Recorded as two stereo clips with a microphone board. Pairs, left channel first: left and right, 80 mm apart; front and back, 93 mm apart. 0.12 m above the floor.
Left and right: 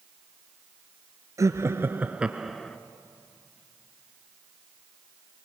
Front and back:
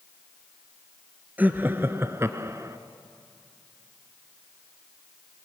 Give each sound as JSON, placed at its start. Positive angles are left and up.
{"t": 1.4, "sound": "laughter", "azimuth_deg": -115, "distance_m": 1.6}